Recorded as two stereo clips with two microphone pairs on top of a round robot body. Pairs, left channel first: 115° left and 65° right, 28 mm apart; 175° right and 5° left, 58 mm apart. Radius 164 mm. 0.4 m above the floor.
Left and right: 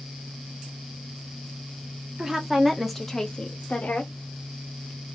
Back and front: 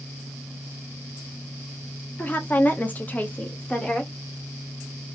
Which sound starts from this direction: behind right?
A woman speaking, at 2.2 s.